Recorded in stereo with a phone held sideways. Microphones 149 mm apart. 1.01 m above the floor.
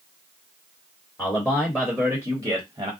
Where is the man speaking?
20° left (ahead or behind), 1.4 m; by 2.9 s 35° right (ahead or behind), 1.0 m.